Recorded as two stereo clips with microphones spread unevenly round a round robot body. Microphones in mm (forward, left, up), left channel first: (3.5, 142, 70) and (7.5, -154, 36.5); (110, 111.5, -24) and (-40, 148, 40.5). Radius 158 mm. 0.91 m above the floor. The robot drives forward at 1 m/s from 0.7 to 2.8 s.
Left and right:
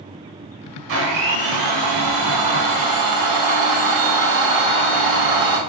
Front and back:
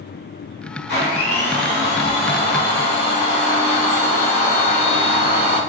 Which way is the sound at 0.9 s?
40° right.